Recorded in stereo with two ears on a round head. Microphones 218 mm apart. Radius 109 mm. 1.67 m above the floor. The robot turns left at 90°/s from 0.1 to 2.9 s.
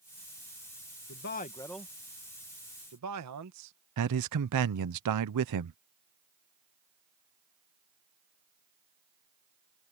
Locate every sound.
1.1 s a man speaking: 60° left (ahead or behind); by 3.7 s 80° right
4.0 s a man speaking: 85° right